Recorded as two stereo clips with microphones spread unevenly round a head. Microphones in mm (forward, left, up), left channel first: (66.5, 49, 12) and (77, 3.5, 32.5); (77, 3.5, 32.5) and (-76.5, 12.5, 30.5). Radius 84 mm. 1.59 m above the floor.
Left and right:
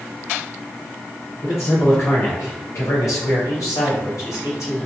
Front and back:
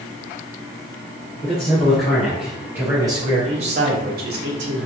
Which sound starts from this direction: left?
A man speaking, at 1.4 s.